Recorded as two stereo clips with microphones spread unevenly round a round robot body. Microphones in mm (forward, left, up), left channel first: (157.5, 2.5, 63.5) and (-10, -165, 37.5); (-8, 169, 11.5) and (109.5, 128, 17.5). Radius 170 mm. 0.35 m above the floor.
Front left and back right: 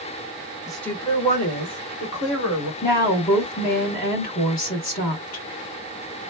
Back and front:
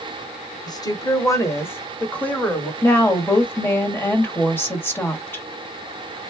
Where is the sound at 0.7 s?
150° left, 1.0 m; by 2.7 s 80° left, 2 m.